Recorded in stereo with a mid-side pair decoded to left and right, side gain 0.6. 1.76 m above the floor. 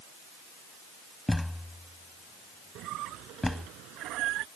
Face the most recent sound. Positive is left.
turn(degrees=-65)